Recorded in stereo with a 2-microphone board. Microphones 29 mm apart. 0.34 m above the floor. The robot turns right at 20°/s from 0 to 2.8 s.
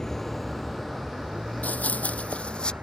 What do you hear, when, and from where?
0.0 s a vehicle: 20° left (ahead or behind); by 2.8 s 75° right (ahead or behind)
1.6 s running footsteps: 70° left (ahead or behind); by 2.7 s 35° left (ahead or behind)